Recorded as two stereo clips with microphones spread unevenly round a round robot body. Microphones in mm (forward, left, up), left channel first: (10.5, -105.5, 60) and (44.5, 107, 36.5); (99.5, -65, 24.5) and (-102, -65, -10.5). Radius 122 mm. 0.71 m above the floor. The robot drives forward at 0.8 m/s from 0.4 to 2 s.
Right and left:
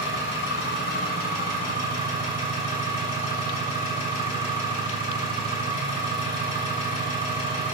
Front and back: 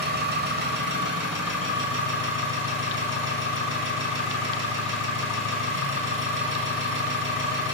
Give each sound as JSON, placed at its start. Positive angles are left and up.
{"t": 0.0, "sound": "an engine running", "azimuth_deg": -145, "distance_m": 2.5}